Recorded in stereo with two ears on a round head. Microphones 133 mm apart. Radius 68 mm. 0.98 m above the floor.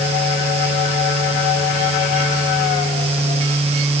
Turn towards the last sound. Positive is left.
No sound to turn to.